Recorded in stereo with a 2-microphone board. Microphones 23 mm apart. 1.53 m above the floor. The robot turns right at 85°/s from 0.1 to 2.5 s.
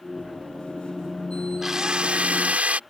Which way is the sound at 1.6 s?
160° right.